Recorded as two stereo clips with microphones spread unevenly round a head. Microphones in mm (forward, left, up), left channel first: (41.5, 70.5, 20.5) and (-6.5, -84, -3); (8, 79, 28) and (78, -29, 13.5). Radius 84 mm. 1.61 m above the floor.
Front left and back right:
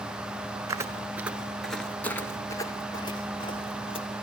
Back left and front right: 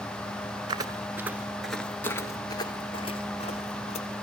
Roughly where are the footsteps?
Ahead right.